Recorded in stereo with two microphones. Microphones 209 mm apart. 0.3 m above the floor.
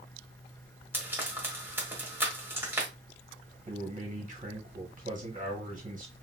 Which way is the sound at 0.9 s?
10° right (ahead or behind).